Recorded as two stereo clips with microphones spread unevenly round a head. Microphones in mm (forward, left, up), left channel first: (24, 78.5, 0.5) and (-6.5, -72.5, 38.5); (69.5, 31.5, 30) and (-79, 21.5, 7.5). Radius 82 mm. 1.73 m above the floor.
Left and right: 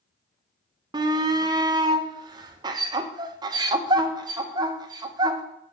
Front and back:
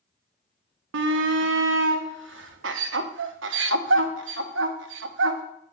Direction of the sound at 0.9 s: 165° right.